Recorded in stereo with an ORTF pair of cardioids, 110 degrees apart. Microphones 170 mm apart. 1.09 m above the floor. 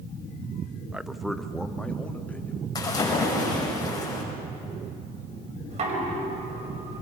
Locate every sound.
0.9 s a man speaking: 5° right, 0.7 m; by 2.6 s 10° left, 2.5 m
2.8 s a splash: 25° left, 6 m
5.7 s knocking: 40° right, 5 m